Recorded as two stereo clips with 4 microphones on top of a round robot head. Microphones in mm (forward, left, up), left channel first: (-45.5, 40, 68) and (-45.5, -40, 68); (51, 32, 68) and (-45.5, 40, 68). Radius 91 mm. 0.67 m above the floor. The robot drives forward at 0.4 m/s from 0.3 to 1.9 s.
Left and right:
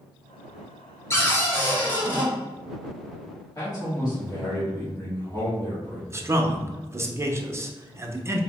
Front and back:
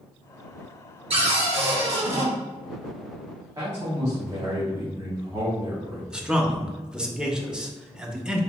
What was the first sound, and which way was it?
A cupboard door, 150° left.